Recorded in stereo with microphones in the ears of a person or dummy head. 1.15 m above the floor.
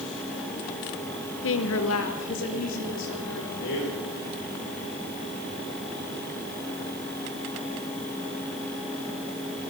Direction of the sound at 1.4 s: 60° left (ahead or behind).